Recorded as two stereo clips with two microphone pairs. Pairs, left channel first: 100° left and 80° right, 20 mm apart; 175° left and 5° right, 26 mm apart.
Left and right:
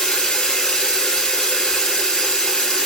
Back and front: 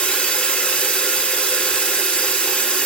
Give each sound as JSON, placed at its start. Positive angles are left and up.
{"t": 0.0, "sound": "running water", "azimuth_deg": 145, "distance_m": 1.7}